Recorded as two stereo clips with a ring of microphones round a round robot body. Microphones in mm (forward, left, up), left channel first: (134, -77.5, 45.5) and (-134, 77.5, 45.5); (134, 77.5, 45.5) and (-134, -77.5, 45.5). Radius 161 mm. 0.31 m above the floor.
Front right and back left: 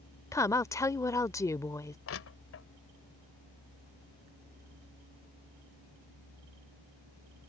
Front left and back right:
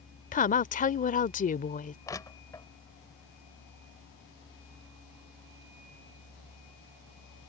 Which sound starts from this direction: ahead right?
Crushing, at 2.1 s.